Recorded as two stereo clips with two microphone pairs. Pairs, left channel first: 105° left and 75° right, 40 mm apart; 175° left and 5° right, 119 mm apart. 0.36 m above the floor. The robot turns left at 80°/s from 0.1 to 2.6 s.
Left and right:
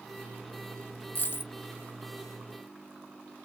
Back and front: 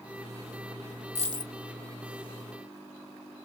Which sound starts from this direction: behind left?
A dropped coin, at 1.1 s.